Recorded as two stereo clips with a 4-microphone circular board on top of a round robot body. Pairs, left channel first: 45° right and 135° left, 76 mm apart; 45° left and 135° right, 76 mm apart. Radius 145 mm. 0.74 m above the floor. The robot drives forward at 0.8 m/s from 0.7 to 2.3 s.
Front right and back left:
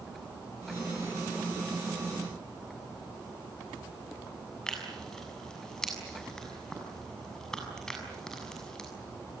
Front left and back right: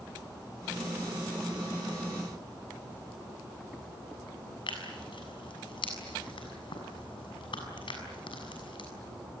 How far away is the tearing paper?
About 7 m.